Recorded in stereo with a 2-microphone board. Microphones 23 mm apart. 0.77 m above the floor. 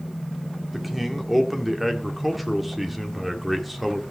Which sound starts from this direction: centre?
A man speaking, at 0.7 s.